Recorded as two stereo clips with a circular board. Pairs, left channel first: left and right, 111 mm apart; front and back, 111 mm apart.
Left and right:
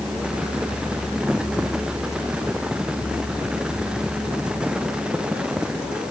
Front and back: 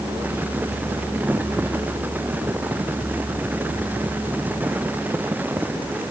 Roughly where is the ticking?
No ticking in this recording.